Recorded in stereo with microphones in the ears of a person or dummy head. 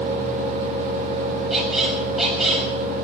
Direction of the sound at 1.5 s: 5° left (ahead or behind).